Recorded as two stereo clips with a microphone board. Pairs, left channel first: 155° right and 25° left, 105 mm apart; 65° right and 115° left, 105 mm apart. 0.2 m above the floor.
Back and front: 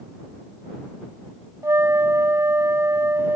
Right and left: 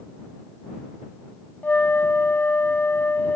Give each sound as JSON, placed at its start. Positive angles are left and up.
{"t": 1.6, "sound": "a flute", "azimuth_deg": -10}